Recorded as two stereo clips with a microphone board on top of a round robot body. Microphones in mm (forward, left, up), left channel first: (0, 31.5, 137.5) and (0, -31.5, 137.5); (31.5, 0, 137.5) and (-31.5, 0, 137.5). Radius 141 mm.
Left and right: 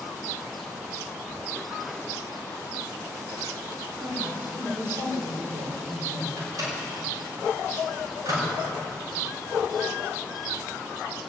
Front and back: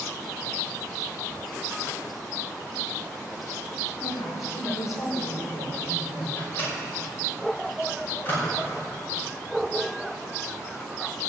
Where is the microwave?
60° right, 5 m.